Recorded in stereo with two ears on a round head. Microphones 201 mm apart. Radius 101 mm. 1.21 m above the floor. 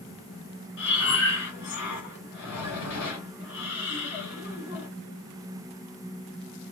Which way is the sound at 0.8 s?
55° left (ahead or behind).